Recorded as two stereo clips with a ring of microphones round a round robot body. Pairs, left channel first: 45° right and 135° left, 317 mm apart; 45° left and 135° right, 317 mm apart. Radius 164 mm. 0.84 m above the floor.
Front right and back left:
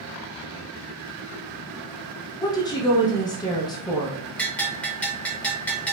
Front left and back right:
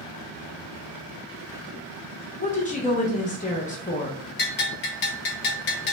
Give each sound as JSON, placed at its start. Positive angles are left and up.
{"t": 2.4, "sound": "a woman speaking", "azimuth_deg": 15, "distance_m": 0.8}
{"t": 4.4, "sound": "a bell", "azimuth_deg": 35, "distance_m": 0.5}